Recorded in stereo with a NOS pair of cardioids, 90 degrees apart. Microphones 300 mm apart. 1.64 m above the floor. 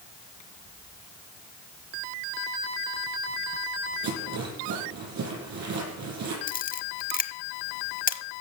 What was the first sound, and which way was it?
A rattle, 65° right.